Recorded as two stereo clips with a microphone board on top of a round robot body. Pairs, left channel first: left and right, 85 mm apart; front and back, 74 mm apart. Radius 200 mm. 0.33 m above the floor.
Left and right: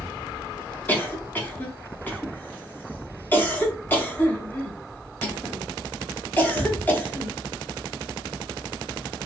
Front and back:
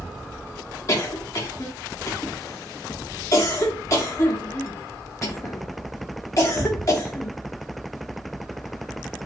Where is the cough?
30° left, 1.1 m.